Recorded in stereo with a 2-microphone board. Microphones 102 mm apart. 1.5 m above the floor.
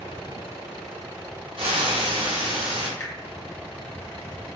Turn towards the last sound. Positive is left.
turn(degrees=25)  # may be behind; listen again after turning